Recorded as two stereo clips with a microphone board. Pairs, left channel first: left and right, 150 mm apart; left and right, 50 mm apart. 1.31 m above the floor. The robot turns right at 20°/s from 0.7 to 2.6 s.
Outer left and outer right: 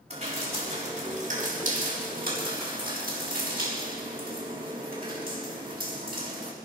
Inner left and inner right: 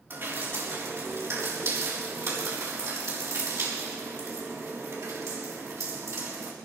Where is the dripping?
45° right (ahead or behind), 6 m; by 6.5 s 80° right, 6 m.